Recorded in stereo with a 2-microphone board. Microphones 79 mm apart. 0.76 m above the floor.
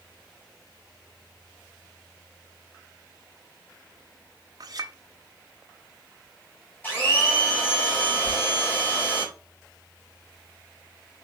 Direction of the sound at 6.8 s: 25° left (ahead or behind).